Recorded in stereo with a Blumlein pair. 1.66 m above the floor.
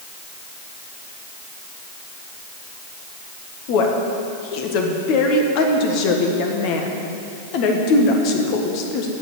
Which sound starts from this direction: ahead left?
A woman speaking, at 3.7 s.